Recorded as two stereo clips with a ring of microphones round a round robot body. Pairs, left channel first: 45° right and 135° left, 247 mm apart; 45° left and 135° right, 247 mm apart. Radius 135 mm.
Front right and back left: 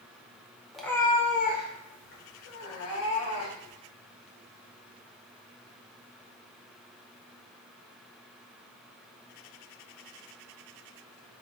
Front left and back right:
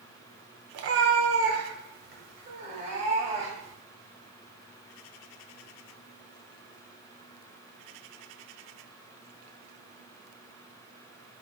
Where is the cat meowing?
135° right, 0.7 m; by 3.8 s 70° right, 2.5 m.